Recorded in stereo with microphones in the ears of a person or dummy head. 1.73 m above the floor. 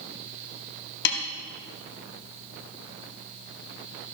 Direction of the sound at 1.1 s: 55° left (ahead or behind).